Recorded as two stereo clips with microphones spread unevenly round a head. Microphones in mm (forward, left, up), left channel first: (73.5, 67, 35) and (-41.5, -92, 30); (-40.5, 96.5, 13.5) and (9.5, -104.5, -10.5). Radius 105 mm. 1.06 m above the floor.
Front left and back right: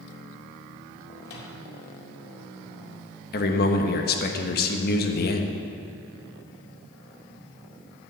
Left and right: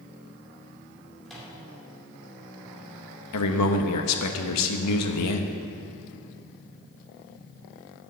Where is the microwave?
15° left, 2 m.